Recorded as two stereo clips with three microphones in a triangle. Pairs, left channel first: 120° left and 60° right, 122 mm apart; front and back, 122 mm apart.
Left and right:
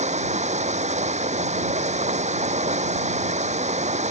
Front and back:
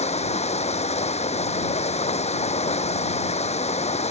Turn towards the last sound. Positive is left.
turn(degrees=-35)